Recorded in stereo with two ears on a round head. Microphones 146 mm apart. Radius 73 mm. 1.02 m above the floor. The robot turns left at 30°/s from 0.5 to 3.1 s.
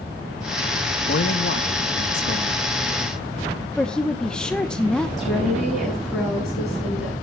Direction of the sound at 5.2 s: Centre (ahead or behind).